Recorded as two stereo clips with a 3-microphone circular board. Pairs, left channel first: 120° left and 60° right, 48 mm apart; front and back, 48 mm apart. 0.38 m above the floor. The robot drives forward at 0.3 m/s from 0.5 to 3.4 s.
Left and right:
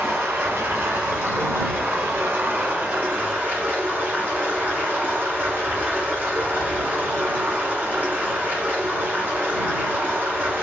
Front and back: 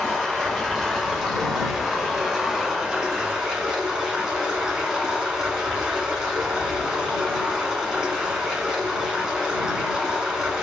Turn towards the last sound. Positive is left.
turn(degrees=-110)